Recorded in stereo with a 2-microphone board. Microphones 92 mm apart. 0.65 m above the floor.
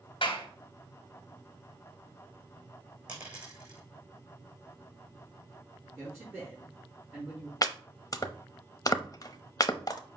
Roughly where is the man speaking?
Right.